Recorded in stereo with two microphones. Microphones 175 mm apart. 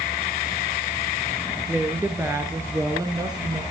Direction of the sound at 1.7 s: 10° right (ahead or behind).